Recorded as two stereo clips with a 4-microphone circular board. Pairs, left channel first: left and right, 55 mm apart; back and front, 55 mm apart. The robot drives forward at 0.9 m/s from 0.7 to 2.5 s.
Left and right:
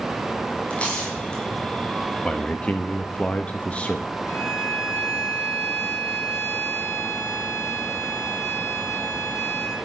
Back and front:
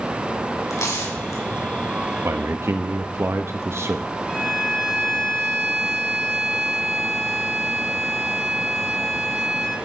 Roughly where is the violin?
Left.